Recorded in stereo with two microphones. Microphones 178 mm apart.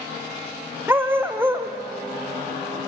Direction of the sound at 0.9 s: 10° right (ahead or behind).